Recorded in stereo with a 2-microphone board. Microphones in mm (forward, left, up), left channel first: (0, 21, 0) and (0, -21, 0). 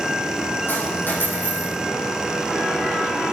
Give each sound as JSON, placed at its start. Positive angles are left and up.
{"t": 0.7, "sound": "a dropped coin", "side_deg": 60, "distance_m": 7.0}